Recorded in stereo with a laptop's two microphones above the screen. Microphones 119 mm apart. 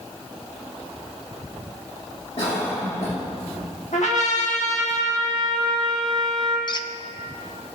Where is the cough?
65° left (ahead or behind), 1.9 m.